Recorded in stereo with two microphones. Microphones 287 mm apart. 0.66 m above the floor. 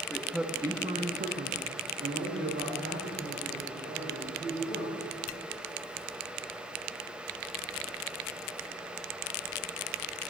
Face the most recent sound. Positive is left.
turn(degrees=-45)  # may be behind; listen again after turning